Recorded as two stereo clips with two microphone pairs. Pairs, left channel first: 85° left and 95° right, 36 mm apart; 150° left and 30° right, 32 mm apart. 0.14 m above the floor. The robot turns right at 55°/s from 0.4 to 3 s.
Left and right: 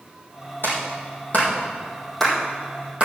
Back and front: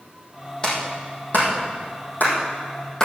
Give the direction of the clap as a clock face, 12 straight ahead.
9 o'clock.